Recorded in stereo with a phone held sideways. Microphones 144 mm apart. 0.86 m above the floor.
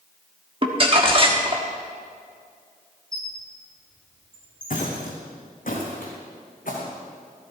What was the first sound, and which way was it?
Crumpling, 40° right (ahead or behind).